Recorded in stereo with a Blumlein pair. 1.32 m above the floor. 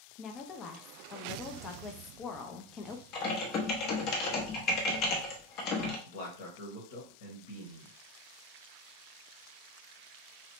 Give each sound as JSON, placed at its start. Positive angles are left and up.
{"t": 0.2, "sound": "a woman speaking", "azimuth_deg": 30, "distance_m": 0.7}
{"t": 3.1, "sound": "typing on a keyboard", "azimuth_deg": 35, "distance_m": 0.9}
{"t": 6.1, "sound": "a man speaking", "azimuth_deg": 50, "distance_m": 1.3}